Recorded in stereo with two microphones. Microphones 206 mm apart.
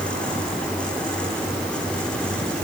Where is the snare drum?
I don't hear a snare drum.